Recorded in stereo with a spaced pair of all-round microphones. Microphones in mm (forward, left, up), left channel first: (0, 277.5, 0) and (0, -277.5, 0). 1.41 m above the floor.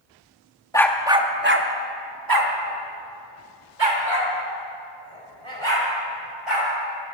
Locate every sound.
0.7 s a dog barking: 5° left (ahead or behind), 0.9 m; by 6.7 s 60° right (ahead or behind), 4 m